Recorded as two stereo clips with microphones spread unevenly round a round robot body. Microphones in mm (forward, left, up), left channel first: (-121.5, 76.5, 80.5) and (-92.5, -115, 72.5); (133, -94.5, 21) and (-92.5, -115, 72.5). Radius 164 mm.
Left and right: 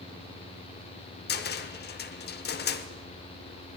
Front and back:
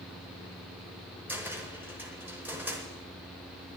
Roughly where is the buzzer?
No buzzer in this recording.